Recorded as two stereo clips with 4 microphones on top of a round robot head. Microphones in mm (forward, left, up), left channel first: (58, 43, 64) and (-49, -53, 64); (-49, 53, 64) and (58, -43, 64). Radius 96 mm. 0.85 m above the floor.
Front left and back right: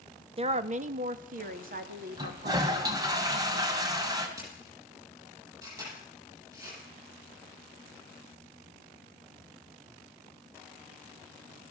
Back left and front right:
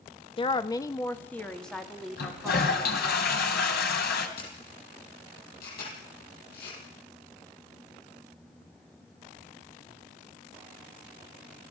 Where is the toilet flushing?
155° left, 3 m.